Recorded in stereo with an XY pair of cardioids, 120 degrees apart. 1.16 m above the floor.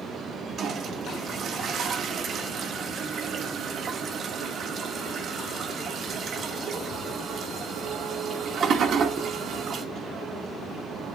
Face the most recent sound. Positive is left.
turn(degrees=-50)